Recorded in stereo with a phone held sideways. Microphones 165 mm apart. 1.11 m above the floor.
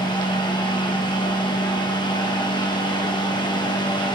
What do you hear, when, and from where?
0.0 s a fan: 25° left (ahead or behind), 1.0 m